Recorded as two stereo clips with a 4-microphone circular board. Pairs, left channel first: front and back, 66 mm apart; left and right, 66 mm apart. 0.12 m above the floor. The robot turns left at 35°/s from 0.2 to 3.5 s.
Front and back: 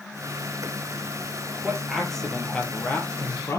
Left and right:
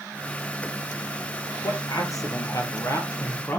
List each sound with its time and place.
1.6 s a man speaking: 100° left, 3 m; by 3.6 s 35° left, 3 m